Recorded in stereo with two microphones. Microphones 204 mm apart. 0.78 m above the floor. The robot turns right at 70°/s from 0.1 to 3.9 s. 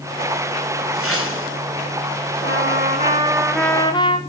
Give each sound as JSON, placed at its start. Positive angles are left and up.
{"t": 0.9, "sound": "a whoosh", "azimuth_deg": 80, "distance_m": 8.0}
{"t": 2.4, "sound": "a trumpet", "azimuth_deg": -80, "distance_m": 2.5}